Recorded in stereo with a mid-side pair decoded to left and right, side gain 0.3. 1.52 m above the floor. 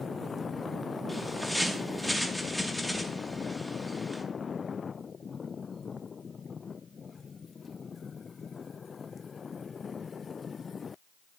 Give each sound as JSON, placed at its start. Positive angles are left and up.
{"t": 1.1, "sound": "a bird", "azimuth_deg": -10, "distance_m": 2.5}